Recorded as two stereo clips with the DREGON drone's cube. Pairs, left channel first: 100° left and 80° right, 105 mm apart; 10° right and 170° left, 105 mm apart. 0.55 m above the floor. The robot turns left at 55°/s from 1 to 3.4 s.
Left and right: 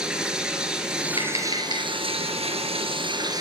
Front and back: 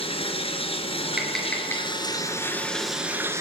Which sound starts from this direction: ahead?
Running water, at 0.0 s.